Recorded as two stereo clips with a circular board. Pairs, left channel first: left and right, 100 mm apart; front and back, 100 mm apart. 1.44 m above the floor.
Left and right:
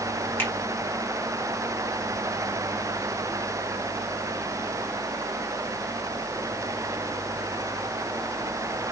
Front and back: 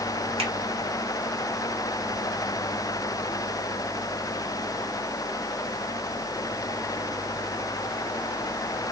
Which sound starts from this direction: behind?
A finger snap, at 0.4 s.